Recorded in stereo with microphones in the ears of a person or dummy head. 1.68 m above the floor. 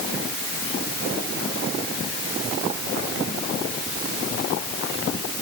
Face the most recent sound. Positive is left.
No sound to turn to.